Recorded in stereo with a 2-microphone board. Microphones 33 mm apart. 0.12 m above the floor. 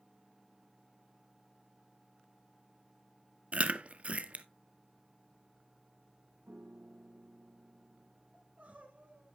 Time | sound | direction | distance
3.5 | chewing | 40° right (ahead or behind) | 0.6 m
6.5 | a piano | 65° right (ahead or behind) | 1.5 m
8.3 | crying | 45° right (ahead or behind) | 2.5 m